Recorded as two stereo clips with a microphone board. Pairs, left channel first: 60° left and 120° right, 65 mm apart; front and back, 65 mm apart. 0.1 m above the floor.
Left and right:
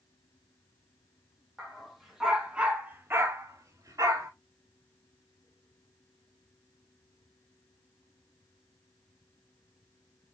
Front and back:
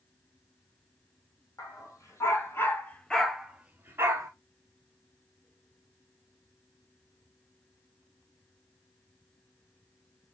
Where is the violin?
I don't hear a violin.